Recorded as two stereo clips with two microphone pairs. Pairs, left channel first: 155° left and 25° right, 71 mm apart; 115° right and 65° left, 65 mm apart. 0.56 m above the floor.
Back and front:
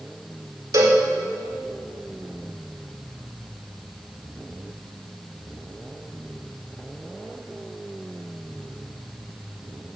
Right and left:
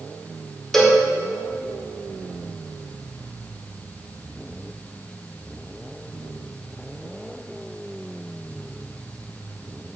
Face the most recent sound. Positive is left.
turn(degrees=-30)